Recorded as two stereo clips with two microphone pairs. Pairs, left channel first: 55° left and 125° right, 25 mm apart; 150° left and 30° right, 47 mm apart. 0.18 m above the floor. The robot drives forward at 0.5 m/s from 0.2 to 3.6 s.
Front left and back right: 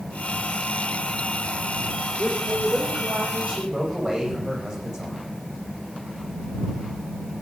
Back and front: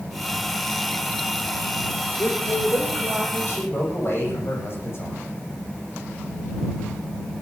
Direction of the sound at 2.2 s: 175° left.